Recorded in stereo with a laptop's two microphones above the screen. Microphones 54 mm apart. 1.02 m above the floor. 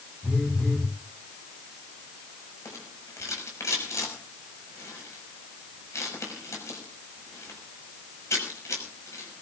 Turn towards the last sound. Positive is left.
turn(degrees=70)  # may be behind; listen again after turning